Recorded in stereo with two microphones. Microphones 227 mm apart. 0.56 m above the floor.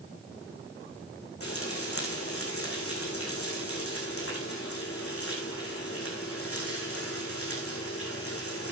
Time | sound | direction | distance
1.4 | frying | 80° left | 6.5 m